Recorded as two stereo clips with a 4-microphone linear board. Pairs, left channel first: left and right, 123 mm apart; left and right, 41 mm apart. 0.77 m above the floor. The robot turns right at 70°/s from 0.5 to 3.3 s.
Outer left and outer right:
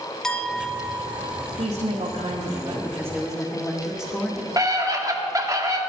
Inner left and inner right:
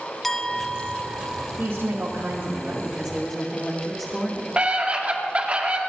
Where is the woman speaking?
100° right, 2 m; by 4.5 s 20° left, 2 m.